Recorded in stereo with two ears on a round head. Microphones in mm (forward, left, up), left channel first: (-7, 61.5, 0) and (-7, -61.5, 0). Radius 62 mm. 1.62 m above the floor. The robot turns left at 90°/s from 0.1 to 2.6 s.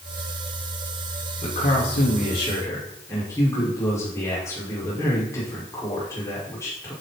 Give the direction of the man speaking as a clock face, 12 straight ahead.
8 o'clock.